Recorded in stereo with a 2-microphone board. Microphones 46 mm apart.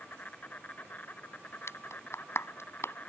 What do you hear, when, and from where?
0.0 s an insect: 40° left (ahead or behind)
1.7 s a clap: 70° left (ahead or behind)